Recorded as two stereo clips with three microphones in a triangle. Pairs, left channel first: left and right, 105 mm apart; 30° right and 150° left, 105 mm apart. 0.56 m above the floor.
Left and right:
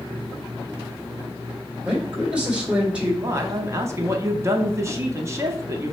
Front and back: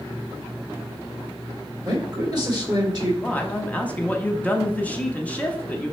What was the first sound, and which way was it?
A man speaking, 165° right.